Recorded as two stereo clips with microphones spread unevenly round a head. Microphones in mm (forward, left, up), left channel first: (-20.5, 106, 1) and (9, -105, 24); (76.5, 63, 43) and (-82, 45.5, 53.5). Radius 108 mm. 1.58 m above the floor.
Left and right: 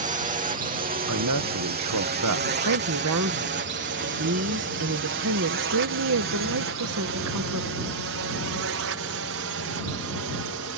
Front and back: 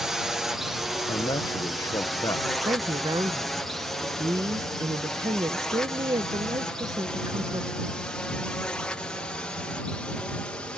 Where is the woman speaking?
100° right.